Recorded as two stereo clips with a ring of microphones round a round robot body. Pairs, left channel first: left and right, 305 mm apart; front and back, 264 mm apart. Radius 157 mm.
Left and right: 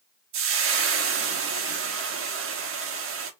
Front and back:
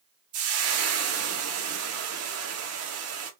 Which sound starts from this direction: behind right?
Frying, at 0.3 s.